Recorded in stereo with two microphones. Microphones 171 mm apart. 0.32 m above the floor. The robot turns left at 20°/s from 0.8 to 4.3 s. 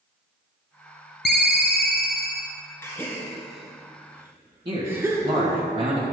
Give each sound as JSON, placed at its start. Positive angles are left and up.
{"t": 1.2, "sound": "a ringtone", "side_deg": 75, "distance_m": 0.9}
{"t": 2.8, "sound": "a gasp", "side_deg": 15, "distance_m": 1.8}
{"t": 4.7, "sound": "a man speaking", "side_deg": -35, "distance_m": 1.7}